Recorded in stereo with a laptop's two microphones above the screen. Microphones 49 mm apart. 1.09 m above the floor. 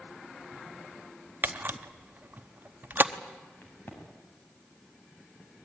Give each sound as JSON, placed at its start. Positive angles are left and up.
{"t": 1.4, "sound": "a camera shutter", "side_deg": -40, "distance_m": 0.9}
{"t": 3.6, "sound": "a crack", "side_deg": 35, "distance_m": 6.5}